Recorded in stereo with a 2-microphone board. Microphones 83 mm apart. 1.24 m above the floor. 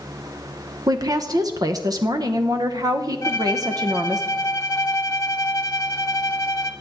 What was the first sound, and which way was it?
A woman speaking, 50° right (ahead or behind).